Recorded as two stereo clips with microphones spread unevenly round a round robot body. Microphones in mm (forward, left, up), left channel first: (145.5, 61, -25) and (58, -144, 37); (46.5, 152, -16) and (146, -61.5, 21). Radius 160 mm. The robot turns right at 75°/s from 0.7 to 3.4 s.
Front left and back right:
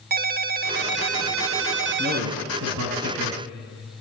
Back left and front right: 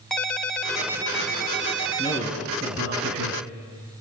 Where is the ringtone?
170° right, 0.6 m; by 2.3 s 50° right, 0.6 m.